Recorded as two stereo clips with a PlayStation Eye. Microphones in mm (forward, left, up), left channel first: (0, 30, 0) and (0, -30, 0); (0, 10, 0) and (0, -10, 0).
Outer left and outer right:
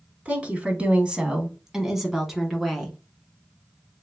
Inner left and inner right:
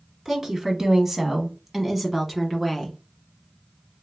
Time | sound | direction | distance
0.2 | a woman speaking | 20° right (ahead or behind) | 1.1 m